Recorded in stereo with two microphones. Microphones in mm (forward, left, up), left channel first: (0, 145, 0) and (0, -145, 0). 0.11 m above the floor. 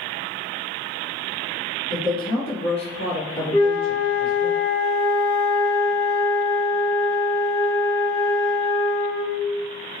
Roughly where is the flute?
Centre.